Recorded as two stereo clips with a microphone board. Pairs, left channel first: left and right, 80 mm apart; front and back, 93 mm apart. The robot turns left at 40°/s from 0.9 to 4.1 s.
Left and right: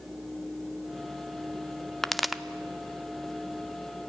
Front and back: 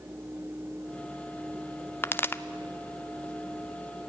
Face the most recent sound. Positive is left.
turn(degrees=-75)